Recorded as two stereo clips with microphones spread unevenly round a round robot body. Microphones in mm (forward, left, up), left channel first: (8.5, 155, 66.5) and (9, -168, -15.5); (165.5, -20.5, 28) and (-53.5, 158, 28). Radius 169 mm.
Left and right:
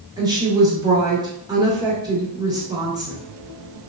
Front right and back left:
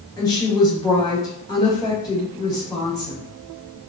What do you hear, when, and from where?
0.2 s a woman speaking: 100° right, 0.8 m